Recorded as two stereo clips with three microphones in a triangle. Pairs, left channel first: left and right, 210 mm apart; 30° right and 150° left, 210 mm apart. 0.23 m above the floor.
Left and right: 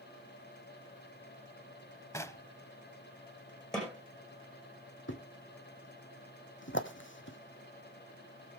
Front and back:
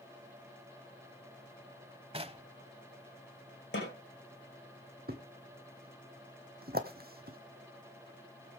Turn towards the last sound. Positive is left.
turn(degrees=110)